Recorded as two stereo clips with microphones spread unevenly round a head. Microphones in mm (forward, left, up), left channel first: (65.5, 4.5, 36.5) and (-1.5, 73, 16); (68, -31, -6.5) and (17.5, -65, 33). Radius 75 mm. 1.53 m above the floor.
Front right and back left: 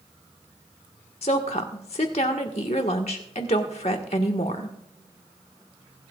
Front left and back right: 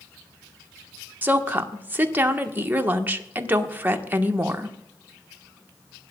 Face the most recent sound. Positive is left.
turn(degrees=-95)